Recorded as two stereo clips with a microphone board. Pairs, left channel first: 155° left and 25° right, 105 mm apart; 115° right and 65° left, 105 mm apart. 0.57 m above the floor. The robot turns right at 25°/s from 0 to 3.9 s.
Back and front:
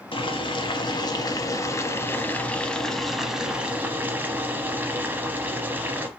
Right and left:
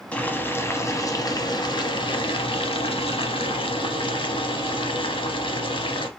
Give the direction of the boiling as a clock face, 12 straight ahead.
6 o'clock.